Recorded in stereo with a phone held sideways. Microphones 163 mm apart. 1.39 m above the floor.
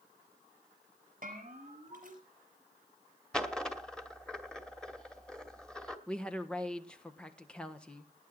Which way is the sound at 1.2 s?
55° right (ahead or behind).